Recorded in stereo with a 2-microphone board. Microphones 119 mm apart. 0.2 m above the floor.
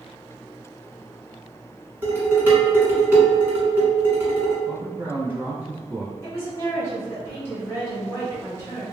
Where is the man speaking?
15° right (ahead or behind), 1.2 m.